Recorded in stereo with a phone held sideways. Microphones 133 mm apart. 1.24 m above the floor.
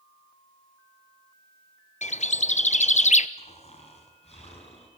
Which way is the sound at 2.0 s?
60° left (ahead or behind).